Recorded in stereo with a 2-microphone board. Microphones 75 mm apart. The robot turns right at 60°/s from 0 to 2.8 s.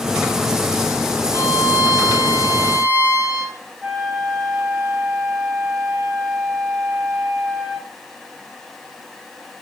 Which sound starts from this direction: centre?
A flute, at 3.8 s.